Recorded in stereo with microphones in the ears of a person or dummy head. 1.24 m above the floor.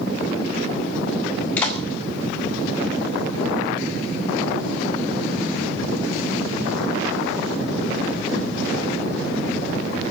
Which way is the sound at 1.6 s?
10° left (ahead or behind).